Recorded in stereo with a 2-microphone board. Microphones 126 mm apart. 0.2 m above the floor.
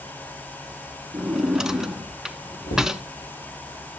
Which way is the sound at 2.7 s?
75° left (ahead or behind).